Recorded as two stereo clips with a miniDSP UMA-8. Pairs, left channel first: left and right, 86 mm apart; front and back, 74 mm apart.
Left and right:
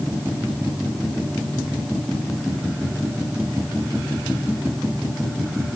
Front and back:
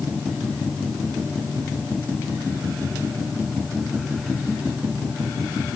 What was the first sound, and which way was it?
Only background noise.